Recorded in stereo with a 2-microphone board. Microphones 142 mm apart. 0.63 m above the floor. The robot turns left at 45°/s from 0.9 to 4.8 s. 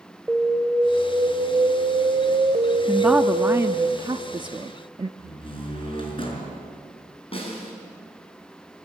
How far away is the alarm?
About 2 m.